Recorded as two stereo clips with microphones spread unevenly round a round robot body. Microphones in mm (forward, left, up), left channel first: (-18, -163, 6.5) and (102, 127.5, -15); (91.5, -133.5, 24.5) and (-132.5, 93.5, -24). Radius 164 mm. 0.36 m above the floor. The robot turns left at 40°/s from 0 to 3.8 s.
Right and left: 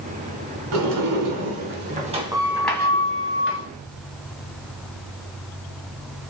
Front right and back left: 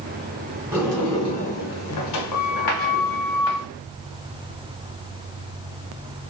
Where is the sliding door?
55° left, 0.8 m; by 3.7 s 65° right, 0.8 m.